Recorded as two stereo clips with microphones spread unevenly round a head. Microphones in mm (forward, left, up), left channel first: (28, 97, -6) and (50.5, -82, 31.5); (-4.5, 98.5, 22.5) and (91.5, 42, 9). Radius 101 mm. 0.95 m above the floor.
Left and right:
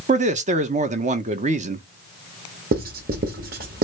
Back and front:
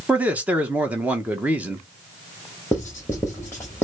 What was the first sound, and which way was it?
A man speaking, 75° right.